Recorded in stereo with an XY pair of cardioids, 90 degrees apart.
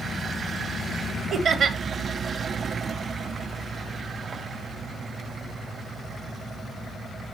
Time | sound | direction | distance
1.3 | laughter | 65° right | 1.7 m